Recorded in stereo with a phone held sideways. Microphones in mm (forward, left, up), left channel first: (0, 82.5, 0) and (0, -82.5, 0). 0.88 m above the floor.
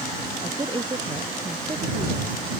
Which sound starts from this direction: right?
A woman speaking, at 0.4 s.